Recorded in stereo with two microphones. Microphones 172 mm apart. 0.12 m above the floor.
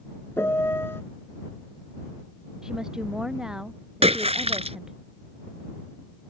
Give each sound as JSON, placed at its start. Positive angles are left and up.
{"t": 0.4, "sound": "a piano", "side_deg": 15}
{"t": 2.6, "sound": "a woman speaking", "side_deg": -5}
{"t": 4.0, "sound": "a splash", "side_deg": -35}